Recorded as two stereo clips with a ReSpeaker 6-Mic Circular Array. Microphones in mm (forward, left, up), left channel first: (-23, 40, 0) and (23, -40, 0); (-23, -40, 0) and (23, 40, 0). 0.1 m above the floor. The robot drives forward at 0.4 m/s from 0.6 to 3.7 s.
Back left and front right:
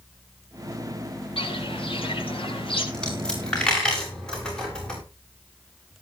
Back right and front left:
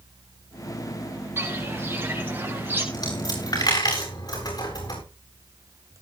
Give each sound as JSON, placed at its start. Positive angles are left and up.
{"t": 1.4, "sound": "footsteps", "azimuth_deg": 125, "distance_m": 8.0}
{"t": 2.9, "sound": "a dropped coin", "azimuth_deg": -160, "distance_m": 7.0}